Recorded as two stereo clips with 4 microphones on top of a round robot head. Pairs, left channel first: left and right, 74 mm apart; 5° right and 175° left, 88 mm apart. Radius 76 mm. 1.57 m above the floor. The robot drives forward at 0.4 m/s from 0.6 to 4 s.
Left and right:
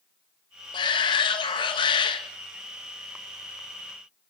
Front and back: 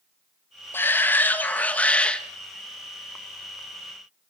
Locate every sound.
0.7 s a shout: 65° left, 2.5 m; by 2.2 s 75° left, 2.5 m